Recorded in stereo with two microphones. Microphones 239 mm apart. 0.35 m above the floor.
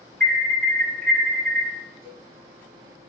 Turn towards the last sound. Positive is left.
turn(degrees=-10)  # may be behind; listen again after turning